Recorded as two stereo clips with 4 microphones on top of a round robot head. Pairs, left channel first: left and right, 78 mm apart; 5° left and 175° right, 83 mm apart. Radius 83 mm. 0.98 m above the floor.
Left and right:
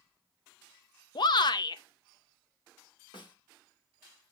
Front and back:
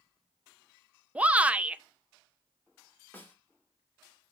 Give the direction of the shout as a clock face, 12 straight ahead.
8 o'clock.